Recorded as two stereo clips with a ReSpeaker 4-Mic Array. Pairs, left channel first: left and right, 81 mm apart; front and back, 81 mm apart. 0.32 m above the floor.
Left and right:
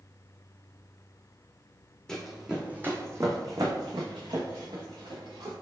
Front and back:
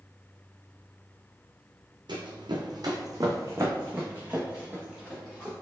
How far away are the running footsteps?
About 0.8 m.